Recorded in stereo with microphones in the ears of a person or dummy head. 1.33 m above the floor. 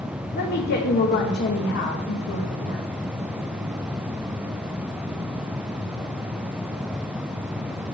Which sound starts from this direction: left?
A woman speaking, at 0.3 s.